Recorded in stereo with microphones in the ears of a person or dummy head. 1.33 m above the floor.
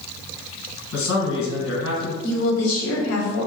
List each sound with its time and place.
0.9 s a man speaking: 70° left (ahead or behind), 1.2 m
2.2 s a woman speaking: 70° left (ahead or behind), 0.8 m